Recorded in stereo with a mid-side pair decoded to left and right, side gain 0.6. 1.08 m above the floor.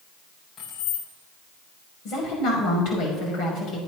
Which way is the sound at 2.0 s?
65° left.